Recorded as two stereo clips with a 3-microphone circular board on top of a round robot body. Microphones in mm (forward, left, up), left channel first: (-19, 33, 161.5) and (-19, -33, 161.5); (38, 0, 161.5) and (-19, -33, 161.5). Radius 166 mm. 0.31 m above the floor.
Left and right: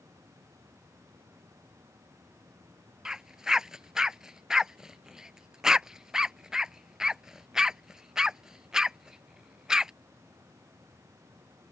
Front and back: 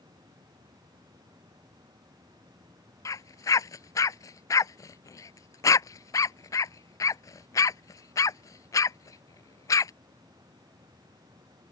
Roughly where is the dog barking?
Ahead.